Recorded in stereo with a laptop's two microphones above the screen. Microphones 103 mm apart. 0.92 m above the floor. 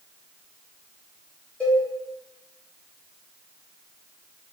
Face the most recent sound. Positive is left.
turn(degrees=15)  # may be behind; listen again after turning